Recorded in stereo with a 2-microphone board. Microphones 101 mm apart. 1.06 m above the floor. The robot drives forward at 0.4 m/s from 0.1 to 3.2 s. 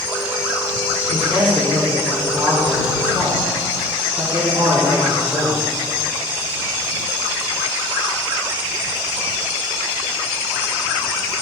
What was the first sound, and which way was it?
A man speaking, 60° right (ahead or behind).